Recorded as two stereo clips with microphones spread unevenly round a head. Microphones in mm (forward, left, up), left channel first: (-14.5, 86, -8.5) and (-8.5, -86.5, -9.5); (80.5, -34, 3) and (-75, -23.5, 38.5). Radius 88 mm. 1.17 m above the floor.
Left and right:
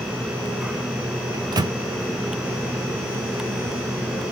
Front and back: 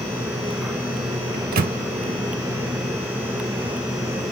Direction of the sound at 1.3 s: 155° right.